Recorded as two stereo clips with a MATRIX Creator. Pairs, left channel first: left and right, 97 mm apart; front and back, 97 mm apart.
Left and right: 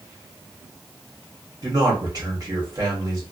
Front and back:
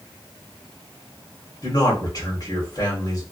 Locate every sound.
1.6 s a man speaking: 45° right, 1.8 m